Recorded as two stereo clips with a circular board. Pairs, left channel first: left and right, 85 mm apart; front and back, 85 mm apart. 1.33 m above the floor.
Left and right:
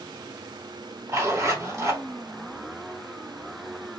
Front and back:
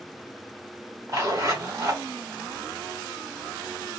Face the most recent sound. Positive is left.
turn(degrees=-140)